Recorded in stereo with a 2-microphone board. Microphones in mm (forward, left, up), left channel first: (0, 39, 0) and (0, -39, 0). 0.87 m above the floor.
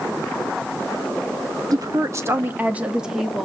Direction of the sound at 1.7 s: 50° right (ahead or behind).